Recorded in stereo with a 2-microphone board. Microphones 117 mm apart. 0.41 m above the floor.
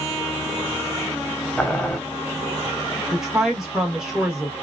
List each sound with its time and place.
1.6 s boiling: 10° left (ahead or behind), 0.6 m
3.1 s a woman speaking: 5° right (ahead or behind), 0.8 m